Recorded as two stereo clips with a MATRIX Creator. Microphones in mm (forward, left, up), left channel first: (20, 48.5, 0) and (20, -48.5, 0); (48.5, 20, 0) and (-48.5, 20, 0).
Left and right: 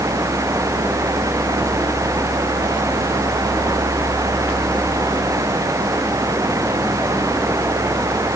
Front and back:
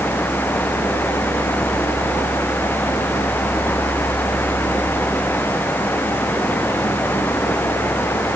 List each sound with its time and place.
Only background noise.